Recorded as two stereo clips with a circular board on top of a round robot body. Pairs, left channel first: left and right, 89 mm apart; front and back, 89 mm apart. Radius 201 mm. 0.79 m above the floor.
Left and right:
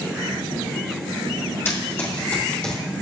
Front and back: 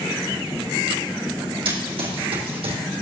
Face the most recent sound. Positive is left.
turn(degrees=170)